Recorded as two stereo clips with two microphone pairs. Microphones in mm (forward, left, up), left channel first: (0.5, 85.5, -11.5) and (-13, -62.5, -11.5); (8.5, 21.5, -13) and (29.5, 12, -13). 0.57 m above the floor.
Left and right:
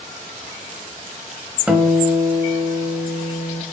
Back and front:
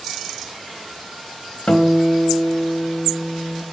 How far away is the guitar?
About 0.8 m.